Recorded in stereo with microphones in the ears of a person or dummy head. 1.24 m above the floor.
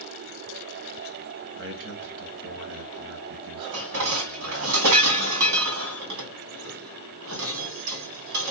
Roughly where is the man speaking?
Right.